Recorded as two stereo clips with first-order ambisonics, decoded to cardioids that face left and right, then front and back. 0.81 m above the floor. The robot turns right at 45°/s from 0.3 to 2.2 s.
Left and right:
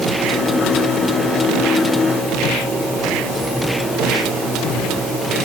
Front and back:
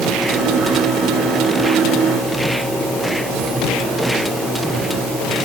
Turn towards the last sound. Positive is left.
No sound to turn to.